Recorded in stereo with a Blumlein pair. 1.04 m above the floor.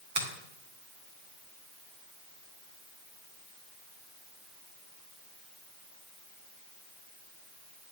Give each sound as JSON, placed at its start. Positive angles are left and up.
{"t": 0.1, "sound": "a finger snap", "azimuth_deg": -55, "distance_m": 1.4}